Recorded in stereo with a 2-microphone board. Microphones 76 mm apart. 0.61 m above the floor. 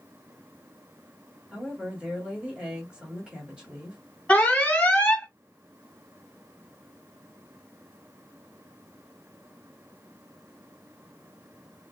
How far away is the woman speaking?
About 1.6 m.